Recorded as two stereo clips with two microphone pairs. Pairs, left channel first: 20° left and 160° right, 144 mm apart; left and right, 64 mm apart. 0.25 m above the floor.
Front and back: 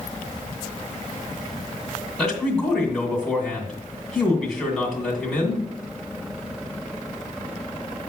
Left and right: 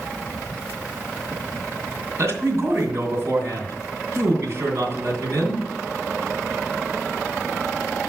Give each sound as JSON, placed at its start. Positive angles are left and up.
{"t": 2.2, "sound": "a man speaking", "azimuth_deg": -65, "distance_m": 2.0}